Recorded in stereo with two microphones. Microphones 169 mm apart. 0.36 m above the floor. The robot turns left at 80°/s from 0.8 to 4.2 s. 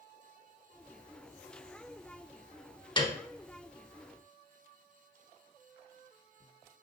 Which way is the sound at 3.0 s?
30° left (ahead or behind).